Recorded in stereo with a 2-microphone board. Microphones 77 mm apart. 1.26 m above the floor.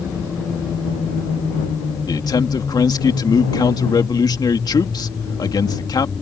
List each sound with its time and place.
2.1 s a man speaking: 60° left (ahead or behind)